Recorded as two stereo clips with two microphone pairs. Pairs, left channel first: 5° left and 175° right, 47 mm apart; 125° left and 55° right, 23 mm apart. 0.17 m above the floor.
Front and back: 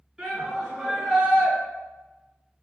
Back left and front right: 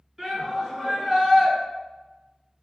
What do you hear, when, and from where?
0.2 s a shout: 115° right, 1.9 m